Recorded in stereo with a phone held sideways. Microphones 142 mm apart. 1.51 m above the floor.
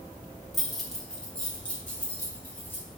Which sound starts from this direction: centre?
Keys jangling, at 0.5 s.